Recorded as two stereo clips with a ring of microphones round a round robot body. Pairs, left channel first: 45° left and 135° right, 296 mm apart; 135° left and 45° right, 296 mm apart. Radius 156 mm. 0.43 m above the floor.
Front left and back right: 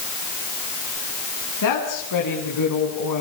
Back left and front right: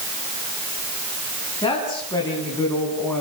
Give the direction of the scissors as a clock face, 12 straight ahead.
No scissors in this recording.